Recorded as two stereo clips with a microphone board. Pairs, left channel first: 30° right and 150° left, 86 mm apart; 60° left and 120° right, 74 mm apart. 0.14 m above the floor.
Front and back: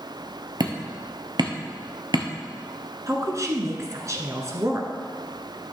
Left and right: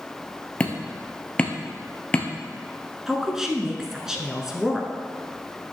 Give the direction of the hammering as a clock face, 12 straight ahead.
8 o'clock.